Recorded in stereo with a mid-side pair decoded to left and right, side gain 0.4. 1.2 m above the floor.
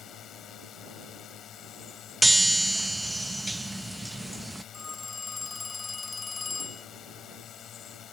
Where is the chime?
15° right.